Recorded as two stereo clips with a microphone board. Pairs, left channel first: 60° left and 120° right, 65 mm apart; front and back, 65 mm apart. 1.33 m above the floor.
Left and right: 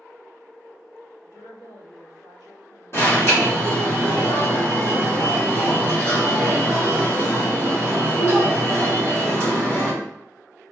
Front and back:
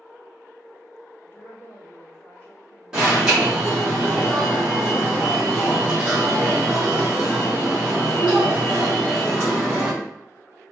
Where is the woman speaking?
65° left, 1.7 m.